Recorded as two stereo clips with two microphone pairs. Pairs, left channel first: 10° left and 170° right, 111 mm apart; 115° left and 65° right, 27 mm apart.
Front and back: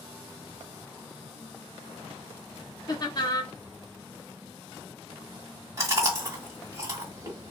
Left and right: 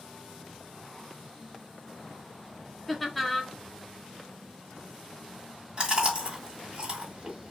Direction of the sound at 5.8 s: 115° right.